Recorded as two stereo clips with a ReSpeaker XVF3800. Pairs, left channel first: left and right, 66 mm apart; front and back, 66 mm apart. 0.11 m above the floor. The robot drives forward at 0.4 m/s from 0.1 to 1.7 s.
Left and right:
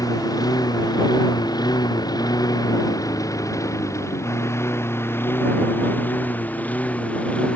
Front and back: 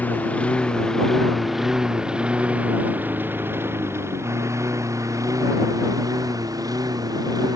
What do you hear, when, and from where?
0.0 s a lawn mower: 65° left; by 7.6 s 160° left